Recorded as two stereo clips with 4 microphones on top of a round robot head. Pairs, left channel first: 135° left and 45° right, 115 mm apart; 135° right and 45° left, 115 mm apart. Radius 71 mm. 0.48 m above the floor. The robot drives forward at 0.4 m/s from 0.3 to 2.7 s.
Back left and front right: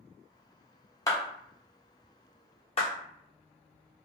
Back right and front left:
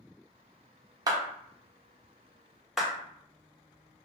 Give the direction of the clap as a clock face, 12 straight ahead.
9 o'clock.